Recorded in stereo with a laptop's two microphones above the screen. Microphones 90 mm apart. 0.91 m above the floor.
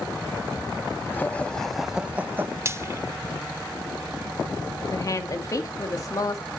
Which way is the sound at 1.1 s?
25° left (ahead or behind).